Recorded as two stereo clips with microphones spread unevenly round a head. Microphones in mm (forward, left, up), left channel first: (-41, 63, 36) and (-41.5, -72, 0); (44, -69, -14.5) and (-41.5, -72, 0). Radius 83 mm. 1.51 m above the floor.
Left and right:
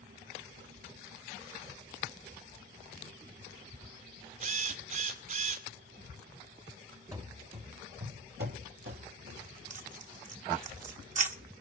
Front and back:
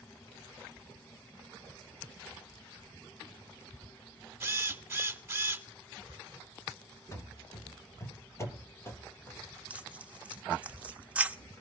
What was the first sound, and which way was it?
A drill, 120° right.